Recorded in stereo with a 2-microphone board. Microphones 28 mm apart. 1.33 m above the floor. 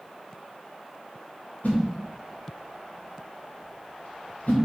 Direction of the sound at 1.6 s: 75° left (ahead or behind).